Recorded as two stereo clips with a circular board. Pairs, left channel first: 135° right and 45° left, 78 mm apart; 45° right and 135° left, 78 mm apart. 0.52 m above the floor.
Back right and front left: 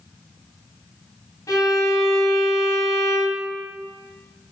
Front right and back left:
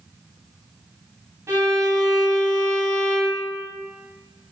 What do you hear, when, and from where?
1.5 s a violin: 175° right, 2.5 m